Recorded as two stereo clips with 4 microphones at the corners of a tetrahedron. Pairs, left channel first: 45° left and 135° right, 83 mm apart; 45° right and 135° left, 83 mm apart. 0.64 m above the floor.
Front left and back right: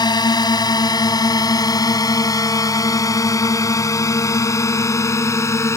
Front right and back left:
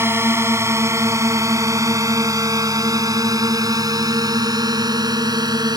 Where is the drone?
75° left; by 5.8 s 100° left.